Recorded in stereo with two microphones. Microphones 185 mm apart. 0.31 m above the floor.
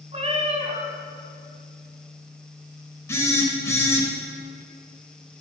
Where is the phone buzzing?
15° left (ahead or behind), 1.3 m.